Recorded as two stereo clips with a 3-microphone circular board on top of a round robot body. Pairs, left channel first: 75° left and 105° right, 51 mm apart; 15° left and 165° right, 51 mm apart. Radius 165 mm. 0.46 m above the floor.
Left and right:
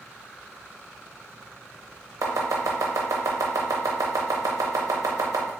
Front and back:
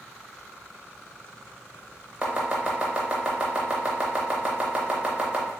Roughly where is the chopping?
Right.